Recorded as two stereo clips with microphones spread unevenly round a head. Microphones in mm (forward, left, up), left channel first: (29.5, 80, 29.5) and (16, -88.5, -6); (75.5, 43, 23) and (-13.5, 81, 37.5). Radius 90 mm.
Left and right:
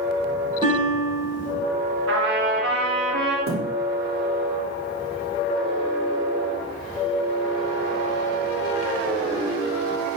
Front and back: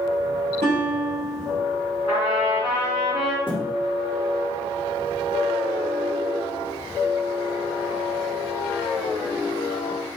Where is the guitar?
160° right, 3.5 m.